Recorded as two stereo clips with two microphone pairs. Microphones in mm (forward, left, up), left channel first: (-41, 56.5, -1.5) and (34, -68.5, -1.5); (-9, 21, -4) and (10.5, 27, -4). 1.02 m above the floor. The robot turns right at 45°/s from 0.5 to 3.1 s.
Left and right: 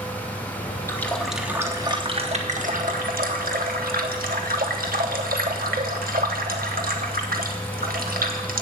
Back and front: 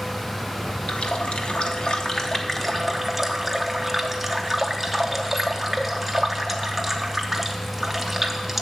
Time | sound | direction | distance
0.9 | a running tap | 165° right | 1.0 m